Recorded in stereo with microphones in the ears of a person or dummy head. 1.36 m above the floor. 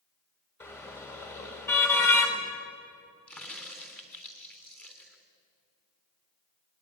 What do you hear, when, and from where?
0.6 s a car horn: 15° left (ahead or behind), 3 m
3.3 s a crack: 10° left (ahead or behind), 3 m